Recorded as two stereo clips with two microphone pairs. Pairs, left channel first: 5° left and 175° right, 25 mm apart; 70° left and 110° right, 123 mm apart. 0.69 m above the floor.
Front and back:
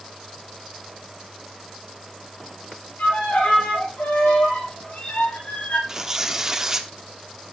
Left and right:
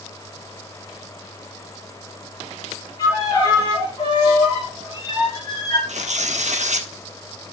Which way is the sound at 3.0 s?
15° left.